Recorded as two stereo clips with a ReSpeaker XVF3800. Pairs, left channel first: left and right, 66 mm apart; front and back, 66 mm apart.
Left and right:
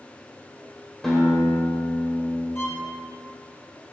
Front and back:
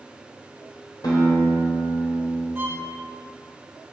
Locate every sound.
1.0 s a guitar: 5° left, 4 m
2.5 s a violin: 130° left, 2 m